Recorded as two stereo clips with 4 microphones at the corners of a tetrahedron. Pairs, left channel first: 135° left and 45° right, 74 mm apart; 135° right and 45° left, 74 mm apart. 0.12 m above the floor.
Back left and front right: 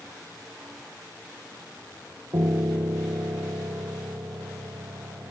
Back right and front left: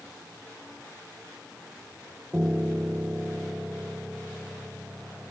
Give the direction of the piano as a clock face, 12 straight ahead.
1 o'clock.